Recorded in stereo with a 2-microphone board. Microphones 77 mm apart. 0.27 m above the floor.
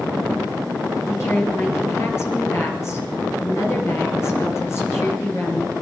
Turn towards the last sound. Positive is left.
turn(degrees=35)  # may be behind; listen again after turning